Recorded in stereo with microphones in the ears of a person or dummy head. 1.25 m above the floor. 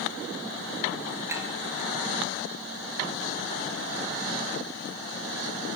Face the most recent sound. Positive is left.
turn(degrees=-15)  # may be behind; listen again after turning